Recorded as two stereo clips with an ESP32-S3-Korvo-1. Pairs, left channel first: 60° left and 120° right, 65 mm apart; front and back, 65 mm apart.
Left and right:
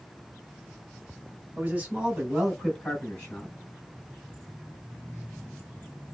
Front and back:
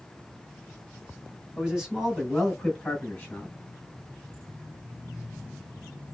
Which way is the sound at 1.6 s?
110° right.